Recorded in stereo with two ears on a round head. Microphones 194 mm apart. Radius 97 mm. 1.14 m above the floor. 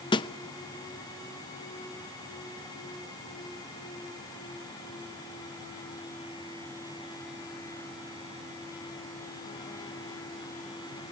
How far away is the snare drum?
About 0.6 m.